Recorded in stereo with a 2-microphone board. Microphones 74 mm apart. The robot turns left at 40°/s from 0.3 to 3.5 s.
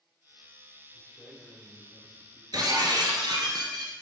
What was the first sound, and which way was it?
A man speaking, 175° right.